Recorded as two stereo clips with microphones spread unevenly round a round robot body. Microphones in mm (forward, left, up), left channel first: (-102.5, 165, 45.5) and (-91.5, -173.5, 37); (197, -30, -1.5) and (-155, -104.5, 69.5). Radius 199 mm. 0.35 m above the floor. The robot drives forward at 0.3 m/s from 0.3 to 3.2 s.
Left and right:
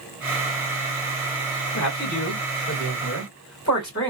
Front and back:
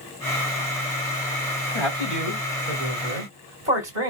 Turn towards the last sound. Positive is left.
turn(degrees=145)